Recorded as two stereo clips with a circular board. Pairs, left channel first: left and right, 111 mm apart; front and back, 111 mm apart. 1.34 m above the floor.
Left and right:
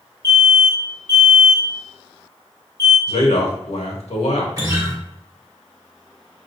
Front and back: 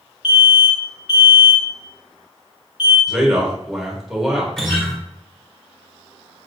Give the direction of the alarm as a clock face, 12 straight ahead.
11 o'clock.